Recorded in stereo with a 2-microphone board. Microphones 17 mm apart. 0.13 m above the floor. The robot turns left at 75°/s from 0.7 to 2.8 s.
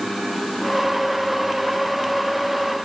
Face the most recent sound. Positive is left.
No sound to turn to.